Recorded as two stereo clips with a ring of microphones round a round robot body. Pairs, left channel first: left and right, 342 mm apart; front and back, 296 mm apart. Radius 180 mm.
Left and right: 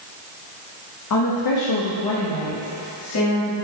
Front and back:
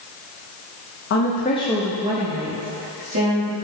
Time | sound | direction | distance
1.1 | a woman speaking | 45° left | 1.0 m